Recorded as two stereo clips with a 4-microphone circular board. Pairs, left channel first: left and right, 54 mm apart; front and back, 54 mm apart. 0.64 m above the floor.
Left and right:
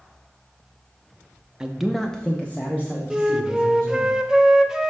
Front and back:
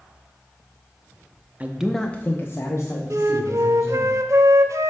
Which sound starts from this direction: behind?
A flute, at 3.1 s.